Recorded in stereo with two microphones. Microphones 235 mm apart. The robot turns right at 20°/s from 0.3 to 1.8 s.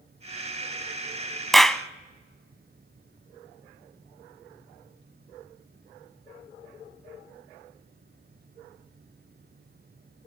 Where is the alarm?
No alarm in this recording.